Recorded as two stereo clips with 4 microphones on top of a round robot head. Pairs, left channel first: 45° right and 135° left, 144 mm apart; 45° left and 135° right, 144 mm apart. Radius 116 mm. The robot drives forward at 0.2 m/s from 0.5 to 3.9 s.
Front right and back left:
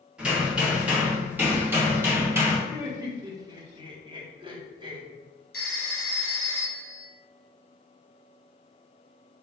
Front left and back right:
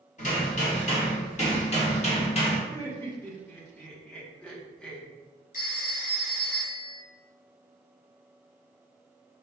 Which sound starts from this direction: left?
Laughter, at 2.7 s.